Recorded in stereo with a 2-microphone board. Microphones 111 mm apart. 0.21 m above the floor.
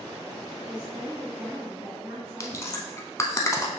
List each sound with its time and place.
0.7 s a woman speaking: 5° right (ahead or behind), 1.9 m; by 2.9 s 35° right (ahead or behind), 1.8 m
2.4 s chewing: 25° left (ahead or behind), 0.6 m